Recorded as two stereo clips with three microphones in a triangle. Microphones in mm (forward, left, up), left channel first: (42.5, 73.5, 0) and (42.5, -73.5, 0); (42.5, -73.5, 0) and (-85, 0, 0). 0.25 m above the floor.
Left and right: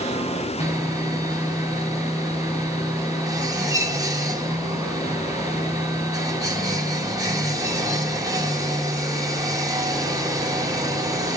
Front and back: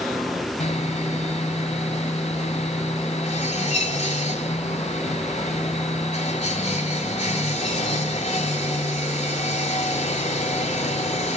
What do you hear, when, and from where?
0.6 s sawing: 30° right, 1.8 m